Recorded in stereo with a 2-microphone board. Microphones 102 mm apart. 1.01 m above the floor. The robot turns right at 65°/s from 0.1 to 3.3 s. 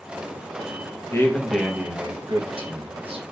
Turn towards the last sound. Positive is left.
turn(degrees=-70)